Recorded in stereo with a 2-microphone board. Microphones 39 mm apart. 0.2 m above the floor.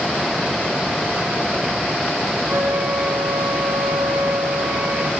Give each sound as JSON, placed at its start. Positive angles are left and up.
{"t": 2.5, "sound": "a flute", "side_deg": -60, "distance_m": 5.5}